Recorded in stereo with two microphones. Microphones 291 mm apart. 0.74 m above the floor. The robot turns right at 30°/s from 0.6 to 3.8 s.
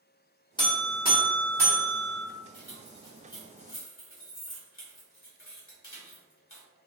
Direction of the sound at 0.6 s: 15° left.